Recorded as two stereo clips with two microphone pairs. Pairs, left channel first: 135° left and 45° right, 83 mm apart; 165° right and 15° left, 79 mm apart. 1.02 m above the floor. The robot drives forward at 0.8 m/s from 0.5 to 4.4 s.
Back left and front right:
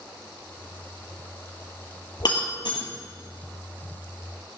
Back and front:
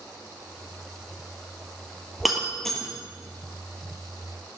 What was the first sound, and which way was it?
Breaking glass, 105° left.